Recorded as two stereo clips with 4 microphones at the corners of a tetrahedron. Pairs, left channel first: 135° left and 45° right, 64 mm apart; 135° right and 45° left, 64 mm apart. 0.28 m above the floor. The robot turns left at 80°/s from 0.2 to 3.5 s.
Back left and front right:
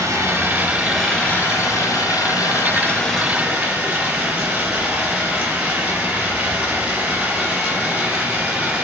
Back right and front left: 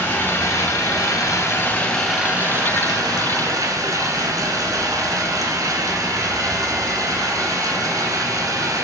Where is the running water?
75° right, 0.8 m; by 8.8 s 25° left, 0.8 m.